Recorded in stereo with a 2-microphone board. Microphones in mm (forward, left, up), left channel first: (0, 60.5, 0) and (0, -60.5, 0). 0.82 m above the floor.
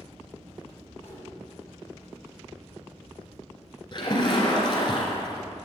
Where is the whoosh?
65° left (ahead or behind), 3.5 m.